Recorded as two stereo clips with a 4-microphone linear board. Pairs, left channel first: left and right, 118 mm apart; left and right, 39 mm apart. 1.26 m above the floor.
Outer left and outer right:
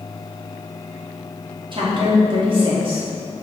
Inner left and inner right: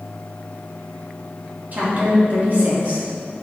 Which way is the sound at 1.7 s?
45° right (ahead or behind).